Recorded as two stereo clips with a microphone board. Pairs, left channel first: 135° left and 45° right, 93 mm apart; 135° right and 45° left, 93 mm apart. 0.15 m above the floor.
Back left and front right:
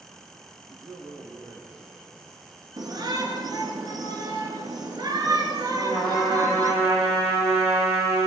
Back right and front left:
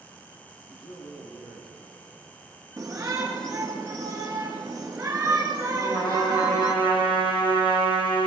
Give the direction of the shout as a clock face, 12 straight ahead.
1 o'clock.